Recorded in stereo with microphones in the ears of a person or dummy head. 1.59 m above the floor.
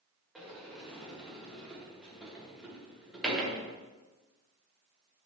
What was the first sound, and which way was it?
A sliding door, centre (ahead or behind).